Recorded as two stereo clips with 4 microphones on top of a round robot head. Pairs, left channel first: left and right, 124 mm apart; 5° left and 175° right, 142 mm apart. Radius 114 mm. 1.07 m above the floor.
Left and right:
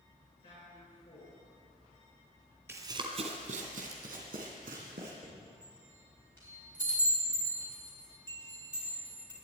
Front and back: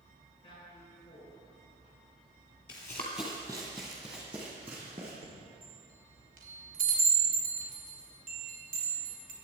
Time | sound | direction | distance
0.4 | a man speaking | 65° left | 5.5 m
2.7 | running footsteps | 30° right | 1.1 m
5.2 | a chime | 165° left | 2.5 m